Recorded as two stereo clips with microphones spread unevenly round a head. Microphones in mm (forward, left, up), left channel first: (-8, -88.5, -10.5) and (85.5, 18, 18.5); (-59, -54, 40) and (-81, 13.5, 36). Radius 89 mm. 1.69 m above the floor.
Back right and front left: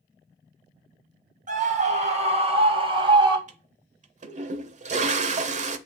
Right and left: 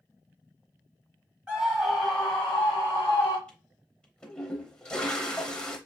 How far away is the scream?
About 1.5 m.